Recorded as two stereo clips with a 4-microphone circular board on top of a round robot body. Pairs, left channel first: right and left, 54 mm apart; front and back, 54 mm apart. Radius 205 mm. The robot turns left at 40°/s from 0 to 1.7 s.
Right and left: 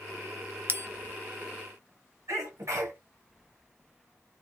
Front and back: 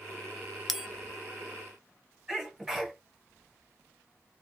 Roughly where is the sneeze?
Left.